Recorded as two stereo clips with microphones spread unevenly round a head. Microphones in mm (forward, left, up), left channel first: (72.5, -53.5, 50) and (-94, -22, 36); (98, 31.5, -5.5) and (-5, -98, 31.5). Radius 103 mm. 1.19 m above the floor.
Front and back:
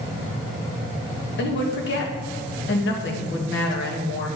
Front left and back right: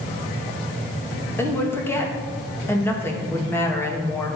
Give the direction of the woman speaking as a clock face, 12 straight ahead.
1 o'clock.